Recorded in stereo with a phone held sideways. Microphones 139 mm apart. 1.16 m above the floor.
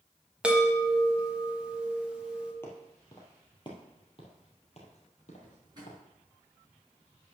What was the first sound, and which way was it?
A chime, 10° right (ahead or behind).